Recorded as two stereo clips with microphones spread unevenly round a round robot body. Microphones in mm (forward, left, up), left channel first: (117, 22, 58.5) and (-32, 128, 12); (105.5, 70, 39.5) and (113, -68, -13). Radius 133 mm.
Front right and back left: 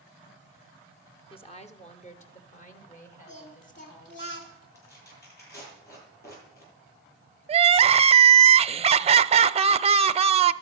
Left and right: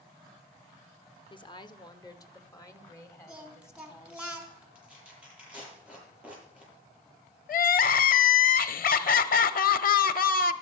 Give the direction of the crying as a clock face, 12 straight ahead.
9 o'clock.